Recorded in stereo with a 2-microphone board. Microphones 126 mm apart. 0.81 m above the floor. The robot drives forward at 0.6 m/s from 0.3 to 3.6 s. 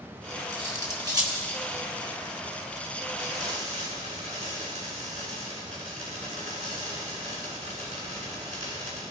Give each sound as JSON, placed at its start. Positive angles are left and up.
{"t": 0.5, "sound": "cutlery clinking", "side_deg": -30, "distance_m": 3.0}
{"t": 3.2, "sound": "frying", "side_deg": -65, "distance_m": 7.0}